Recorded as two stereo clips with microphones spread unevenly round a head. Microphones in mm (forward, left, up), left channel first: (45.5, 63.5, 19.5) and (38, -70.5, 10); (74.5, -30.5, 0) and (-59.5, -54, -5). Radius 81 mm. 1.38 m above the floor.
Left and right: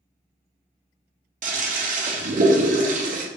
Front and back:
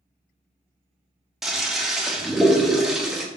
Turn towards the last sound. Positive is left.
turn(degrees=-85)